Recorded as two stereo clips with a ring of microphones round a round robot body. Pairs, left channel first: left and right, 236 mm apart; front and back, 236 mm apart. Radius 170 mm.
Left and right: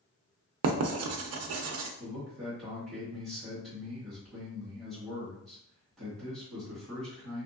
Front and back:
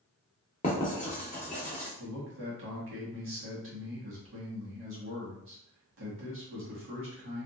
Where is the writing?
70° right, 0.5 m.